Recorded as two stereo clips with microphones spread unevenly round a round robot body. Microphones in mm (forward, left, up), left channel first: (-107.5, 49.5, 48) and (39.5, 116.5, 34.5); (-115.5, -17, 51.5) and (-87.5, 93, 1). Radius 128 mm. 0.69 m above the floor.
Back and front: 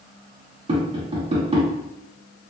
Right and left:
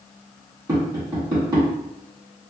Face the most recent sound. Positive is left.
turn(degrees=55)